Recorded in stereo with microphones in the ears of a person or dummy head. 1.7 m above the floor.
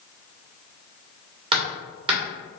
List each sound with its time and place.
1.5 s hammering: 35° right (ahead or behind), 1.3 m